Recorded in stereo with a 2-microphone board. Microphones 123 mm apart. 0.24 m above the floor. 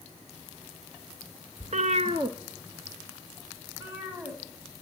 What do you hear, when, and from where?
1.6 s a cat meowing: 75° right (ahead or behind), 0.6 m; by 4.8 s 15° right (ahead or behind), 5 m